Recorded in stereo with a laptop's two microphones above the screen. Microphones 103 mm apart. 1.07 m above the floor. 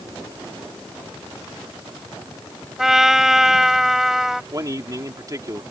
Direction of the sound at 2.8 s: 5° right (ahead or behind).